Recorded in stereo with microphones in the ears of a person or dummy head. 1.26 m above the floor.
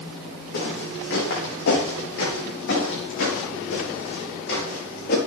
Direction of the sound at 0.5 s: 70° left (ahead or behind).